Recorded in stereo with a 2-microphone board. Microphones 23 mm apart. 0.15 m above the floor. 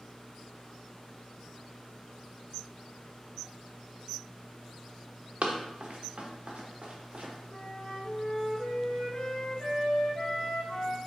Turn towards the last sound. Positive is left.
turn(degrees=35)  # may be behind; listen again after turning